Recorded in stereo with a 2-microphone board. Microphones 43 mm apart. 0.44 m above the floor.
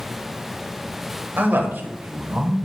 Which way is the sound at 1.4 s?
55° right (ahead or behind).